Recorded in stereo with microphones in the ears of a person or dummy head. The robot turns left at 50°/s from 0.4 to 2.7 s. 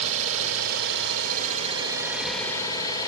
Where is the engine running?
90° right, 4.5 m; by 3.1 s 155° left, 4.5 m.